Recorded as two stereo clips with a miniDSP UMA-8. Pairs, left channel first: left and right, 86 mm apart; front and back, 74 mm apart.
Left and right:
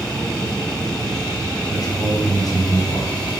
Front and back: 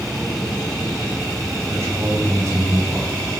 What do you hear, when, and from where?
1.7 s a man speaking: 135° left, 6 m